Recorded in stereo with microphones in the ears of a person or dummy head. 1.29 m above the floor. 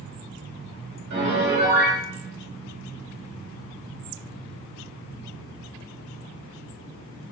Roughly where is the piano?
Right.